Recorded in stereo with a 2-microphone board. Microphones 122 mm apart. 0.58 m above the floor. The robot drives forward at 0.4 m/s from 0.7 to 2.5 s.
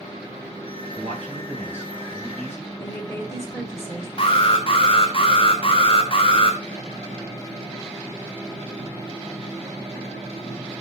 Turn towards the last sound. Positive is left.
turn(degrees=45)  # may be behind; listen again after turning